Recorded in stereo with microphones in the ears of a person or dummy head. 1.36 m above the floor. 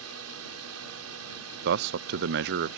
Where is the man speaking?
55° right (ahead or behind).